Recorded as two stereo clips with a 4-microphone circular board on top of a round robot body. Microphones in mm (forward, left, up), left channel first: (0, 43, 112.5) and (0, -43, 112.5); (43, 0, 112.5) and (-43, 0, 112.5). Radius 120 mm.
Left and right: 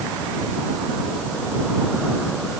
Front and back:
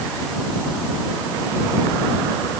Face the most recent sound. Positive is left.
No sound to turn to.